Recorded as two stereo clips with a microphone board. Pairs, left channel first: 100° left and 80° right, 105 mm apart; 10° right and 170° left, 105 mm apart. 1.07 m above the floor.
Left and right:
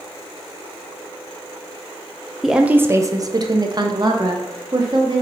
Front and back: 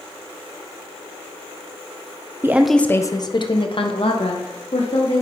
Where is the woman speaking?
165° right, 0.5 m; by 5.2 s 30° right, 2 m.